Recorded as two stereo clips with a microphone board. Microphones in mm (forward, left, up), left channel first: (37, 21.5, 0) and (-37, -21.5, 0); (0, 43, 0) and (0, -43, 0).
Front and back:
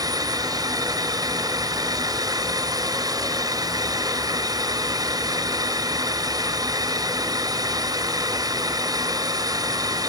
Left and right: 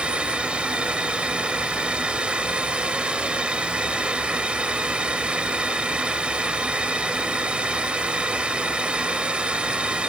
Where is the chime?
I don't hear a chime.